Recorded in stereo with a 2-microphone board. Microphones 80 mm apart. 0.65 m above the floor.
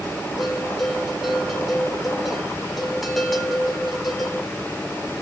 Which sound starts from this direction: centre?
A bell, at 0.4 s.